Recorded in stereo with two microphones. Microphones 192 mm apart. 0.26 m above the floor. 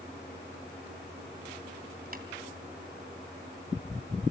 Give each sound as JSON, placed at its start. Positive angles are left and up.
{"t": 2.1, "sound": "tapping", "side_deg": -50, "distance_m": 2.5}